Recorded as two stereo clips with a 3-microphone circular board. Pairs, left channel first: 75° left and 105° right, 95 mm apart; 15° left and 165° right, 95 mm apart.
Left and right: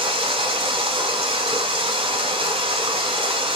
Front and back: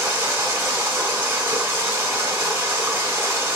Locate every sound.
0.0 s running water: 100° right, 1.2 m